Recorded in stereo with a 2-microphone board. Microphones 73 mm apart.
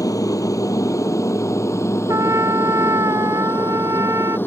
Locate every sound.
0.0 s an aircraft: 50° left (ahead or behind); by 4.5 s 30° left (ahead or behind)
2.1 s a trumpet: 45° right (ahead or behind)